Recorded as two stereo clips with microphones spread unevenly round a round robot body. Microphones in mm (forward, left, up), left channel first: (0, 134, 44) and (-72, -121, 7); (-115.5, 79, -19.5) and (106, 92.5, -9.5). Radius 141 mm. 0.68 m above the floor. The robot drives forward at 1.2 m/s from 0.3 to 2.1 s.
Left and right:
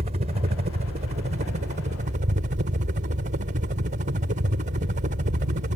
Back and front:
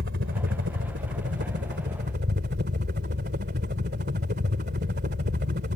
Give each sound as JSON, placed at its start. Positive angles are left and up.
{"t": 0.0, "sound": "a helicopter", "azimuth_deg": -45}